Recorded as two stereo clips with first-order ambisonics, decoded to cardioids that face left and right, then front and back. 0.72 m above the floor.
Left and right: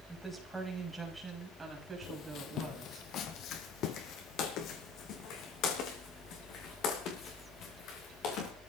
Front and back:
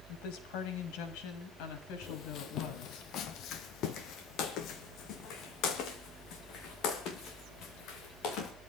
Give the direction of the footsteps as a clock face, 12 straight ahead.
10 o'clock.